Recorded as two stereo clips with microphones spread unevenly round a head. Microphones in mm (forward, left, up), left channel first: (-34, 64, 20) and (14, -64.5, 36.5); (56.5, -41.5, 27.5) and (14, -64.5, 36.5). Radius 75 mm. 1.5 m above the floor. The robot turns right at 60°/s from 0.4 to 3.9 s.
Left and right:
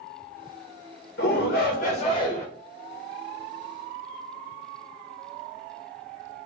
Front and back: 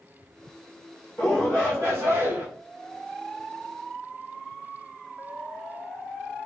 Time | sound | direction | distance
1.2 | a shout | 105° left | 1.7 m